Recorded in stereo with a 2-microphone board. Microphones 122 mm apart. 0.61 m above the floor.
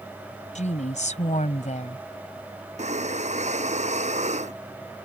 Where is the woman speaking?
75° left (ahead or behind).